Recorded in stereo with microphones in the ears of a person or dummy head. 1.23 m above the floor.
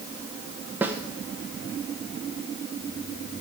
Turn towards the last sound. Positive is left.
turn(degrees=-10)  # may be behind; listen again after turning